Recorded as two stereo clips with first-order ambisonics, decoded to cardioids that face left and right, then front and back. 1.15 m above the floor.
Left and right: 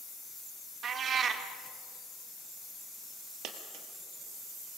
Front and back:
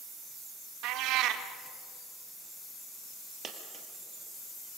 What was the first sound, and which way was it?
A cat meowing, 150° right.